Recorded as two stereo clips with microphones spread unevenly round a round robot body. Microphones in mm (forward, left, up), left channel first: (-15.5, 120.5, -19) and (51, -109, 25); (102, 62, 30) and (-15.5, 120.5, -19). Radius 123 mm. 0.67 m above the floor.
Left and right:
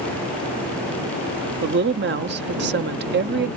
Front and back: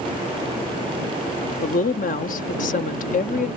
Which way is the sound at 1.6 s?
40° right.